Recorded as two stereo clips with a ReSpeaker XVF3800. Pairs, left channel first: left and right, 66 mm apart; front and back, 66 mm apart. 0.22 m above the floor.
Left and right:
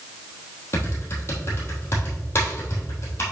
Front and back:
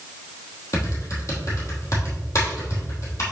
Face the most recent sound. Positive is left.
turn(degrees=40)